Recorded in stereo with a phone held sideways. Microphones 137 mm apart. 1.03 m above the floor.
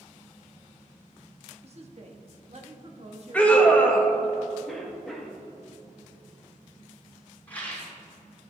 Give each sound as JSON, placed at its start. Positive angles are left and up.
{"t": 1.6, "sound": "a woman speaking", "side_deg": -50, "distance_m": 1.2}
{"t": 3.3, "sound": "a scream", "side_deg": 10, "distance_m": 1.0}
{"t": 4.7, "sound": "a cough", "side_deg": 0, "distance_m": 1.7}
{"t": 7.5, "sound": "a rattle", "side_deg": 10, "distance_m": 3.0}